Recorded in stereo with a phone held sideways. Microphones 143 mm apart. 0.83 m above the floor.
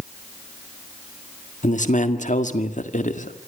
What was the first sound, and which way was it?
A man speaking, 60° left (ahead or behind).